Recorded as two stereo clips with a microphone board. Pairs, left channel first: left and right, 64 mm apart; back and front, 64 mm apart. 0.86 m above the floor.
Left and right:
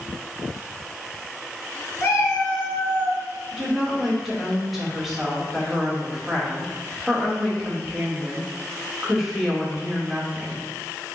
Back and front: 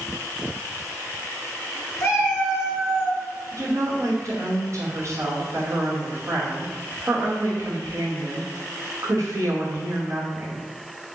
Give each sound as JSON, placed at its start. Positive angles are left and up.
{"t": 2.0, "sound": "a cat meowing", "azimuth_deg": 140, "distance_m": 1.6}
{"t": 3.5, "sound": "a woman speaking", "azimuth_deg": -5, "distance_m": 1.2}